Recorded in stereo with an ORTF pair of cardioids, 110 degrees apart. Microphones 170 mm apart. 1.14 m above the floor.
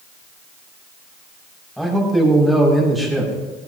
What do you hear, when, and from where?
1.8 s a man speaking: straight ahead, 6.5 m